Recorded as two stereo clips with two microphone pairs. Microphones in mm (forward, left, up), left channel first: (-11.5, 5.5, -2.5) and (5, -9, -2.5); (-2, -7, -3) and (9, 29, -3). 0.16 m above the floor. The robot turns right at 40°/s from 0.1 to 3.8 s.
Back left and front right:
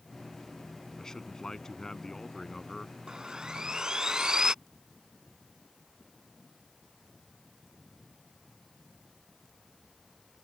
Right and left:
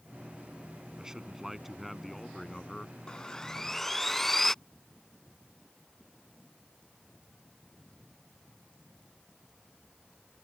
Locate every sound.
1.0 s a man speaking: 120° left; by 3.0 s 160° right
3.1 s sawing: 60° right; by 4.5 s 30° right